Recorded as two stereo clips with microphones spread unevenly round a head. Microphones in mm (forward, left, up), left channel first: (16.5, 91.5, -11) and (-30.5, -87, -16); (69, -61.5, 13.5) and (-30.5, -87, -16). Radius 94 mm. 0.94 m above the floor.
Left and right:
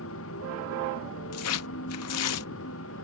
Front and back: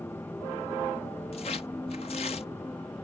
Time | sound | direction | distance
0.0 | a motorcycle | 95° left | ?
1.3 | tearing paper | 70° left | ?